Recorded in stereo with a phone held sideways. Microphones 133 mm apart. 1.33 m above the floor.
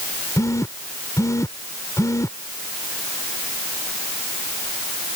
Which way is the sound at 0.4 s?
25° left (ahead or behind).